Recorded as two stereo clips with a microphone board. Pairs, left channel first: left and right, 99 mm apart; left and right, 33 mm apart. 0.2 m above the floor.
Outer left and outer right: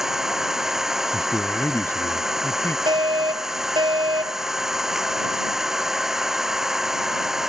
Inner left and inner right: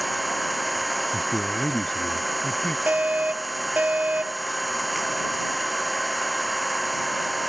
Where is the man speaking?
25° left (ahead or behind).